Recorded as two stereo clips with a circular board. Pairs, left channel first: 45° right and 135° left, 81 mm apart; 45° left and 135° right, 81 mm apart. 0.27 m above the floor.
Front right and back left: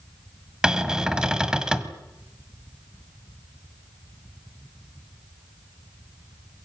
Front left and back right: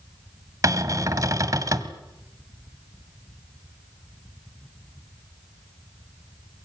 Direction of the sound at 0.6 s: 150° right.